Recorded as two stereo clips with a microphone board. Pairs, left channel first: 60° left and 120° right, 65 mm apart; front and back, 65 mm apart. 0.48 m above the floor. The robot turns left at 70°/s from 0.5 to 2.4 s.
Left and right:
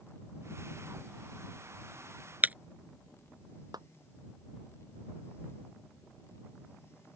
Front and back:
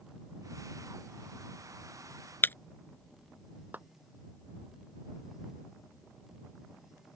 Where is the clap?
120° right.